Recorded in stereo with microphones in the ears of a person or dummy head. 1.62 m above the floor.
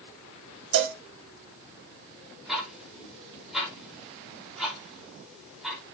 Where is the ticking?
5° right (ahead or behind), 4.5 m.